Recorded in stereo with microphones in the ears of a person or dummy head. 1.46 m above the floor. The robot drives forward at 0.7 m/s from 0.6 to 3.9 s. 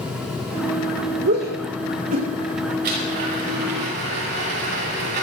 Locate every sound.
1.2 s a shout: 50° right (ahead or behind), 2.5 m; by 2.7 s 35° right (ahead or behind), 3 m
2.8 s a blender: 55° right (ahead or behind), 7 m; by 5.2 s 60° right (ahead or behind), 6.5 m